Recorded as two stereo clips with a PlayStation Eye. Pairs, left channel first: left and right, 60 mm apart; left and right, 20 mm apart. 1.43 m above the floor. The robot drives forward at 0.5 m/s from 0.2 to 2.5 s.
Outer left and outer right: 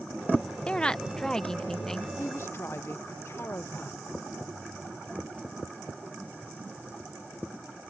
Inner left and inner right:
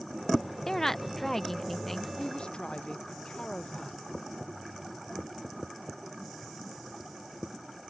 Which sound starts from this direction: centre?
A woman speaking, at 0.7 s.